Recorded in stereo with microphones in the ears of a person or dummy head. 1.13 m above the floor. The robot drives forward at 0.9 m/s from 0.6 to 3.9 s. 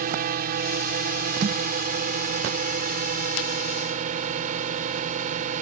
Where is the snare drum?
30° right (ahead or behind).